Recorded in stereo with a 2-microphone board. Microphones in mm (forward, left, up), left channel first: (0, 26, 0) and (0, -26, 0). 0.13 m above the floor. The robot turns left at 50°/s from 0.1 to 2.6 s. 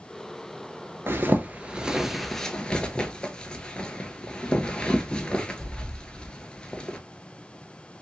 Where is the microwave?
I don't hear a microwave.